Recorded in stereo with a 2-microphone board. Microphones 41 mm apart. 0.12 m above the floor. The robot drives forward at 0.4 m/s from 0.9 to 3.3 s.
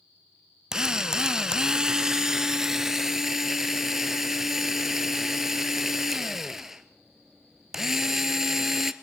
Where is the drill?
15° right (ahead or behind), 0.5 m; by 8.9 s 10° right (ahead or behind), 1.0 m.